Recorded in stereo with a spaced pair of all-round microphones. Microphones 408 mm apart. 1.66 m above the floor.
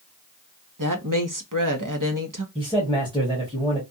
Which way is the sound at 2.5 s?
10° right (ahead or behind).